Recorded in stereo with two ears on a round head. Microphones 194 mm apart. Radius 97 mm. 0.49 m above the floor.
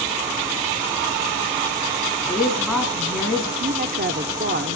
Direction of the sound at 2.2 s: Centre (ahead or behind).